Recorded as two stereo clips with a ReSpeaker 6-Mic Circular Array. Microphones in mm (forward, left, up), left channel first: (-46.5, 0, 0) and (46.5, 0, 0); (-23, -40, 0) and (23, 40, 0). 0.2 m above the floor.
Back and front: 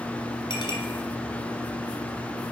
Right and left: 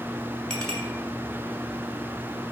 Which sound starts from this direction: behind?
A clink, at 0.5 s.